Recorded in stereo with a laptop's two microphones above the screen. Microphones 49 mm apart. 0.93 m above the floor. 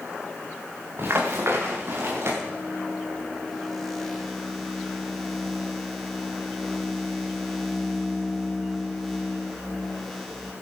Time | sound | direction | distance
1.0 | running footsteps | 50° right (ahead or behind) | 5.5 m
2.4 | a microwave | centre (ahead or behind) | 2 m